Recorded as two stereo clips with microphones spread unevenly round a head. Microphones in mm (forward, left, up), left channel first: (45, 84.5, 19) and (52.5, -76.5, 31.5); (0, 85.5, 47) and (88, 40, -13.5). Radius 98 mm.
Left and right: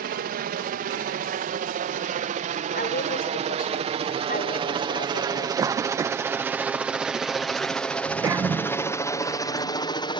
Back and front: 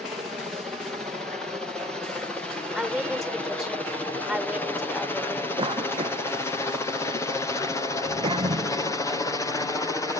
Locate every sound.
0.0 s a helicopter: 95° right; by 10.2 s 65° left
2.8 s a woman speaking: 60° left
5.6 s a cough: 20° right